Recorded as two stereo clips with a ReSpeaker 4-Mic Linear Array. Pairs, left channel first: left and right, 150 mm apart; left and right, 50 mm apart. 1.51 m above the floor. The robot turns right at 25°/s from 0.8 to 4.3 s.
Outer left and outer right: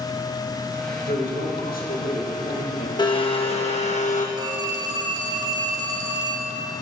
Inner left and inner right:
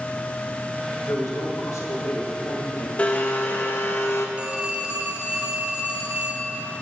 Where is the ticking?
No ticking in this recording.